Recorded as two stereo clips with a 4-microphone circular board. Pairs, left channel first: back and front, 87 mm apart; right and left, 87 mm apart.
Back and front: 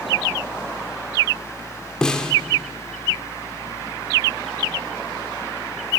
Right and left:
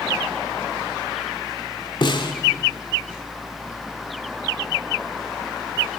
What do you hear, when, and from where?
2.0 s a snare drum: 100° right, 2 m